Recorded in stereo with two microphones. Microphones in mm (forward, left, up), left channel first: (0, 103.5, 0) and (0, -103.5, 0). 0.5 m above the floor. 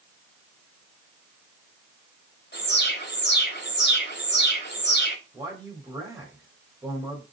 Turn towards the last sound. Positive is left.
turn(degrees=-20)  # may be behind; listen again after turning